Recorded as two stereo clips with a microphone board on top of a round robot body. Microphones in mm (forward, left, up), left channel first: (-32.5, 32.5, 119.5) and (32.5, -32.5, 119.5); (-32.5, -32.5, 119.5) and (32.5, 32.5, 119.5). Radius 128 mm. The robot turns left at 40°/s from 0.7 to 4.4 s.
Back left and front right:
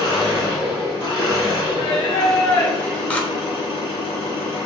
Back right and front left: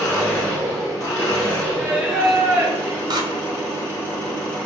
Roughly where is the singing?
Behind left.